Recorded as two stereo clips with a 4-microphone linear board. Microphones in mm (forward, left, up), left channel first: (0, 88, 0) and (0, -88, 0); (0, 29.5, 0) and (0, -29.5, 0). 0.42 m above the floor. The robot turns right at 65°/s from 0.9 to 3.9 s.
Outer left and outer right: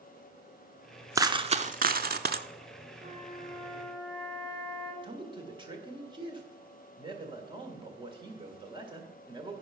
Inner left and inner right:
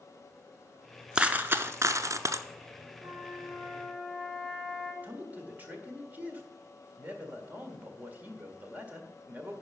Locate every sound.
1.1 s a dropped coin: 160° right, 0.6 m; by 2.5 s 75° right, 0.6 m
3.0 s a flute: 65° right, 3 m; by 4.9 s 5° right, 3 m
5.0 s a man speaking: 25° right (ahead or behind), 1.7 m